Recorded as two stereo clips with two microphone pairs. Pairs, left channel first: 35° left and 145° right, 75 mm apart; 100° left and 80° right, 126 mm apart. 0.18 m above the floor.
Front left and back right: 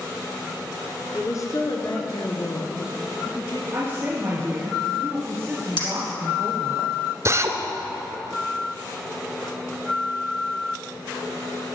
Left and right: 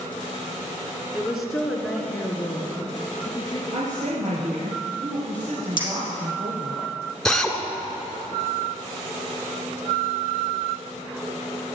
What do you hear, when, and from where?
1.1 s a woman speaking: straight ahead, 2.5 m; by 3.6 s 40° left, 4 m
3.7 s a woman speaking: 80° right, 3.5 m
5.8 s a clink: 50° left, 4 m
7.2 s a drill: 175° right, 1.5 m